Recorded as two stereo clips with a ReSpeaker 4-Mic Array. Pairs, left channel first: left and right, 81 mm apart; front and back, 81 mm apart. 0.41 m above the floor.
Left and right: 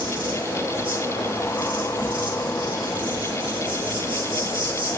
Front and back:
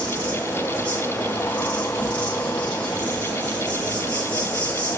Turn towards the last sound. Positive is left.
turn(degrees=-70)